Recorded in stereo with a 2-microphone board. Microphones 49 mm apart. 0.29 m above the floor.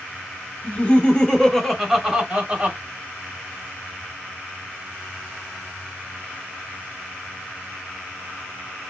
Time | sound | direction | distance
0.6 | laughter | 40° left (ahead or behind) | 1.3 m